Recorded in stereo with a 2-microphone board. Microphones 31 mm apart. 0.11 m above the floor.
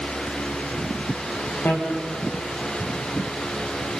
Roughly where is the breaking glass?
No breaking glass in this recording.